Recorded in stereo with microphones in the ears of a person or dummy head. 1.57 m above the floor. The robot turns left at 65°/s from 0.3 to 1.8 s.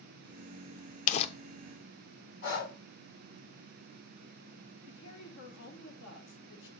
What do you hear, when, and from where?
1.1 s crumpling: 40° left (ahead or behind), 0.5 m; by 1.3 s 30° left (ahead or behind), 0.5 m
2.4 s breathing: 55° left (ahead or behind), 2.0 m
4.9 s a woman speaking: 65° left (ahead or behind), 1.8 m